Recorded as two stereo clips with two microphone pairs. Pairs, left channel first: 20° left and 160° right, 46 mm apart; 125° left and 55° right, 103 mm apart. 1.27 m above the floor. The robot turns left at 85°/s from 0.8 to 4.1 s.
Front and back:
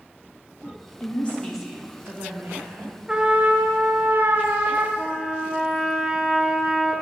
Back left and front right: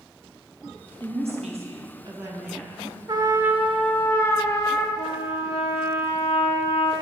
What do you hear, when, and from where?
1.0 s a woman speaking: 20° right, 1.5 m; by 3.0 s 175° left, 1.5 m
3.1 s a trumpet: 90° right, 0.9 m; by 4.9 s 175° right, 0.9 m
5.0 s a trumpet: 115° left, 0.8 m